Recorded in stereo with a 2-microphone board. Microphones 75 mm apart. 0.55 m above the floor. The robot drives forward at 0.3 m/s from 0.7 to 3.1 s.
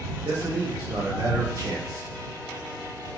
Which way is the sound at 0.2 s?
50° right (ahead or behind).